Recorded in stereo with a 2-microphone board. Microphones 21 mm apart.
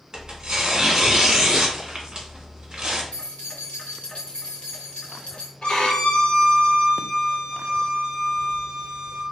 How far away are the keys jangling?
About 1.7 m.